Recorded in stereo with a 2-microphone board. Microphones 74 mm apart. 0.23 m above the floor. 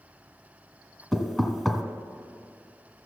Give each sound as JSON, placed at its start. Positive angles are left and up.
{"t": 1.1, "sound": "knocking", "side_deg": 5, "distance_m": 1.1}